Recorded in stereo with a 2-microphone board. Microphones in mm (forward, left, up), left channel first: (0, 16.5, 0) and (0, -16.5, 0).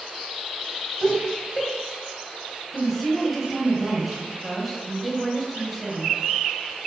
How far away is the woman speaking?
About 1.3 m.